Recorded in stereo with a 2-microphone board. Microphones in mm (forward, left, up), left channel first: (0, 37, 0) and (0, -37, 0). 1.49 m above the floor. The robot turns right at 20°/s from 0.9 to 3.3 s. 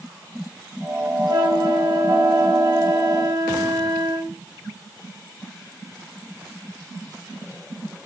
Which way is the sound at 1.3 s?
105° right.